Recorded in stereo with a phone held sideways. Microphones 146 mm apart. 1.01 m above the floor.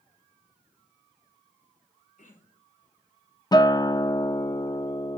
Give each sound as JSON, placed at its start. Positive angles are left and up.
{"t": 2.2, "sound": "throat clearing", "side_deg": 65, "distance_m": 4.0}
{"t": 3.5, "sound": "a guitar", "side_deg": 30, "distance_m": 0.5}